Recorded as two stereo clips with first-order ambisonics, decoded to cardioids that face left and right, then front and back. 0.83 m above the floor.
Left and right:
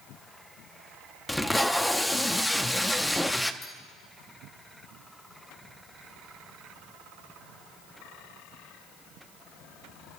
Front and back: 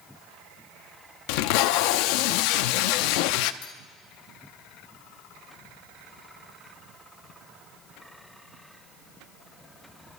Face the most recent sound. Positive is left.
turn(degrees=25)